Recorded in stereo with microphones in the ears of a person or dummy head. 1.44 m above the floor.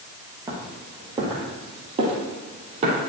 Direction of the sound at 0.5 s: 15° right (ahead or behind).